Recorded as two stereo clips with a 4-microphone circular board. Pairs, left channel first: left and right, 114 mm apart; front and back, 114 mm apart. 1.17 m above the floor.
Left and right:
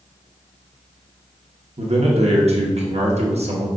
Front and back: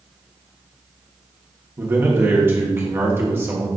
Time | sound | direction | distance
1.8 | a man speaking | 110° right | 1.2 m